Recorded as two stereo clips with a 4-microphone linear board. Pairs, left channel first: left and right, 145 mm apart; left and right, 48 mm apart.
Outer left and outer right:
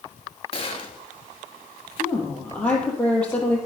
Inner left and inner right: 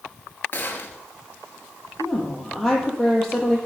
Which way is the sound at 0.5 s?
40° left (ahead or behind).